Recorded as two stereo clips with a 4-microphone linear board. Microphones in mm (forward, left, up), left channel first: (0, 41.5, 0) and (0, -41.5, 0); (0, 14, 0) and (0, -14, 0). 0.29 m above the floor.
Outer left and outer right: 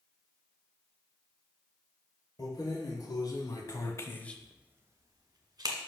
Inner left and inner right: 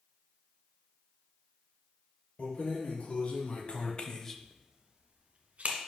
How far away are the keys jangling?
About 3 m.